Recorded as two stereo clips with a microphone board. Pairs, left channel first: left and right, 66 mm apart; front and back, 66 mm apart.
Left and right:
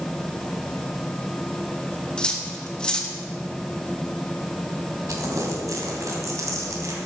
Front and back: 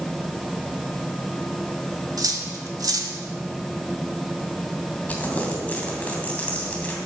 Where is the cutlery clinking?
165° left, 1.4 m.